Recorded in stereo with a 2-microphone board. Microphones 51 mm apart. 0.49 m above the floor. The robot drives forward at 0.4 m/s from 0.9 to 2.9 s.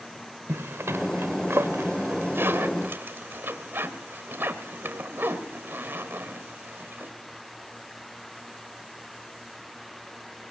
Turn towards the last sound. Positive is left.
turn(degrees=-45)  # may be behind; listen again after turning